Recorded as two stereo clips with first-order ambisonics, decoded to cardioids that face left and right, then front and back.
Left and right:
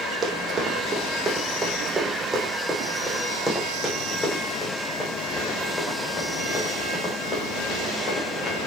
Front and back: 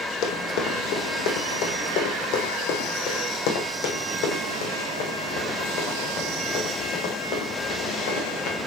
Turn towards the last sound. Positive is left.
turn(degrees=30)